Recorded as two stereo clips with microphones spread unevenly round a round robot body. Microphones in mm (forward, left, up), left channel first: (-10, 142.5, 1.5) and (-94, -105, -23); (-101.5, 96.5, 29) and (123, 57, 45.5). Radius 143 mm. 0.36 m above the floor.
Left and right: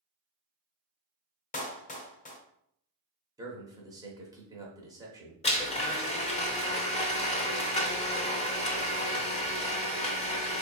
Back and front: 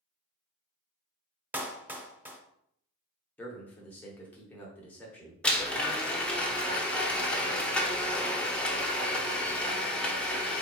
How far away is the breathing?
No breathing in this recording.